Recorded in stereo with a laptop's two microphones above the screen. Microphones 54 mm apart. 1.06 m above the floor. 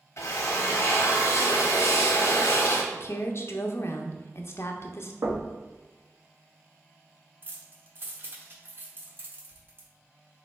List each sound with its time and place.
0.2 s a drill: 60° left (ahead or behind), 0.9 m
2.9 s a woman speaking: 50° left (ahead or behind), 0.5 m
5.2 s knocking: 85° right, 1.0 m
7.4 s keys jangling: 40° right (ahead or behind), 1.0 m